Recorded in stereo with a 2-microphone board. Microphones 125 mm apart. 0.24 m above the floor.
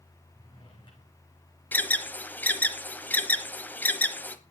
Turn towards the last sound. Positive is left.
turn(degrees=15)  # may be behind; listen again after turning